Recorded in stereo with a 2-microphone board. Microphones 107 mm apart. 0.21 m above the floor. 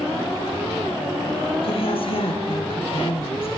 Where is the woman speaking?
60° left (ahead or behind), 3 m.